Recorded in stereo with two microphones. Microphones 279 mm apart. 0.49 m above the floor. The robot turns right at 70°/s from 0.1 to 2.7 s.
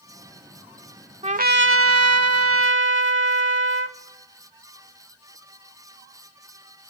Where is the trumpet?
155° right, 0.6 m; by 4.0 s 55° right, 0.6 m.